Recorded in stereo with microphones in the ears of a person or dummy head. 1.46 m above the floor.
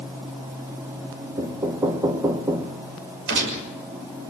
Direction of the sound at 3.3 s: 60° right (ahead or behind).